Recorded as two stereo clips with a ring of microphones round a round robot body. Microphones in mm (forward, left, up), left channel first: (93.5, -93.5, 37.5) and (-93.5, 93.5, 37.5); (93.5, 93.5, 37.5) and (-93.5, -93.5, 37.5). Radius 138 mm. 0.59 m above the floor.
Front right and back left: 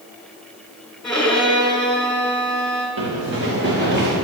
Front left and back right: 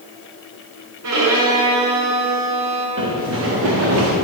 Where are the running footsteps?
Straight behind, 5 m; by 4.1 s 170° right, 6.5 m.